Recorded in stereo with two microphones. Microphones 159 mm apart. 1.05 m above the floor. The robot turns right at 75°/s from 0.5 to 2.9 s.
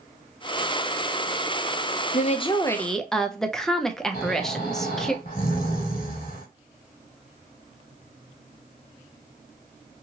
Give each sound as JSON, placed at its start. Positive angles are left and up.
{"t": 2.1, "sound": "a woman speaking", "azimuth_deg": 120, "distance_m": 0.5}
{"t": 4.1, "sound": "snoring", "side_deg": 60, "distance_m": 1.6}